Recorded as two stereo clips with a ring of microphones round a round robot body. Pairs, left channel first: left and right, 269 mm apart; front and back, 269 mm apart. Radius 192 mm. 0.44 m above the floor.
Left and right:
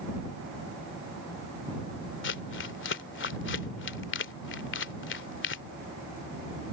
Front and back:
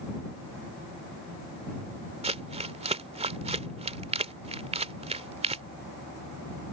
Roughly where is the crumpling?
Behind left.